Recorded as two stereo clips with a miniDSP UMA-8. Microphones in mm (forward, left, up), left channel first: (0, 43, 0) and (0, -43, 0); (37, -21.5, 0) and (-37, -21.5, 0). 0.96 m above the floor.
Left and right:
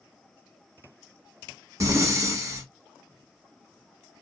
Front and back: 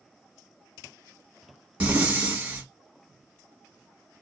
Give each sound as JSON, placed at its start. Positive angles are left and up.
{"t": 1.8, "sound": "breathing", "azimuth_deg": -115, "distance_m": 1.0}